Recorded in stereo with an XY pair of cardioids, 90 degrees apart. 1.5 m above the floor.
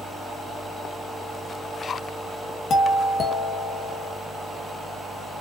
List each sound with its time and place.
2.7 s a doorbell: 60° left, 2.5 m